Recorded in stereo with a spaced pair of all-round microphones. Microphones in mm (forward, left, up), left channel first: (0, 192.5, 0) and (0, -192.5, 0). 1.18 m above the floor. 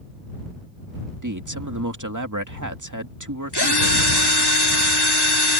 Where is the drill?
85° left.